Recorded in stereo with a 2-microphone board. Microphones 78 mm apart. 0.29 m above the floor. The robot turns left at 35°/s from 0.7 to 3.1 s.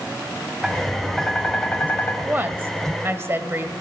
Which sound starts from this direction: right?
A woman speaking, at 2.2 s.